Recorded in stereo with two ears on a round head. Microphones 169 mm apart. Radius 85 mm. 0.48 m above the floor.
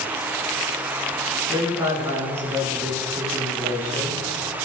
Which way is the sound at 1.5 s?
15° right (ahead or behind).